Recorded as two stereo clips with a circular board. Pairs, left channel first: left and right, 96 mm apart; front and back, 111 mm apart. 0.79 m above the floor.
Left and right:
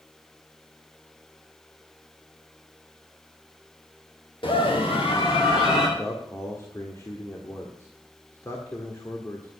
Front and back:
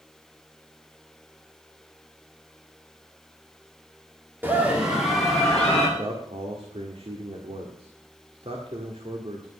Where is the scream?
110° left, 2.0 m; by 5.9 s 80° left, 2.5 m.